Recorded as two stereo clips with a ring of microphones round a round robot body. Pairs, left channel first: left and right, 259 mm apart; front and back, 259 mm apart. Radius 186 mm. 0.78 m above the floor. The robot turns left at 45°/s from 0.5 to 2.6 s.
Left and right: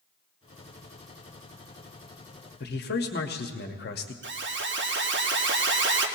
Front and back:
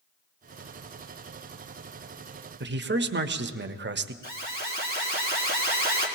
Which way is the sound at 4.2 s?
55° right.